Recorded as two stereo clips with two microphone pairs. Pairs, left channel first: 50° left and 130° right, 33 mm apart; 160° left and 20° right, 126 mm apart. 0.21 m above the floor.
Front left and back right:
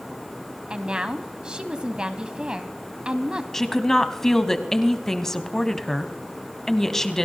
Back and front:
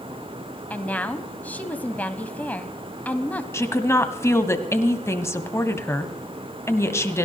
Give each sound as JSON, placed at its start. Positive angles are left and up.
{"t": 0.7, "sound": "a woman speaking", "azimuth_deg": -135, "distance_m": 1.0}
{"t": 3.5, "sound": "a woman speaking", "azimuth_deg": 110, "distance_m": 1.1}